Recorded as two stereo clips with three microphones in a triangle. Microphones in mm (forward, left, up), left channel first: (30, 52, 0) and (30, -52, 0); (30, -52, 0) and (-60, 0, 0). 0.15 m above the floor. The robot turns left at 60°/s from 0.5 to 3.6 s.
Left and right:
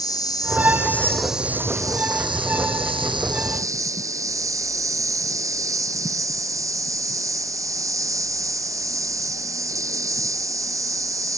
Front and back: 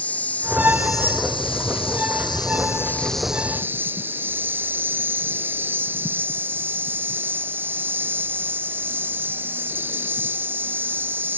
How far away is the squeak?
No squeak in this recording.